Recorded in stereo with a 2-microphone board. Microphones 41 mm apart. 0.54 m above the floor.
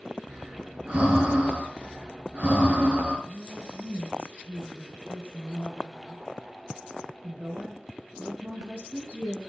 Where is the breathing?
35° right (ahead or behind), 4.5 m.